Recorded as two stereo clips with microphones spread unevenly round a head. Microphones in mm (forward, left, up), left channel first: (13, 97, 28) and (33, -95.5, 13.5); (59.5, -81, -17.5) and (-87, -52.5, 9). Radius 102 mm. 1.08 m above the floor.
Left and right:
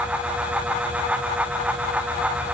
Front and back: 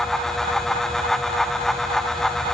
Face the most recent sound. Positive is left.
No sound to turn to.